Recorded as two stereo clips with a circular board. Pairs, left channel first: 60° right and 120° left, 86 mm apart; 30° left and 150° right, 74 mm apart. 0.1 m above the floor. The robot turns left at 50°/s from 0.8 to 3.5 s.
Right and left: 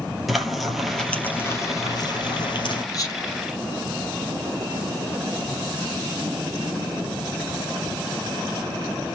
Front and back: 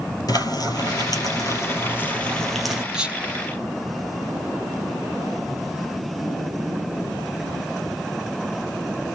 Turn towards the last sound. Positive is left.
turn(degrees=-100)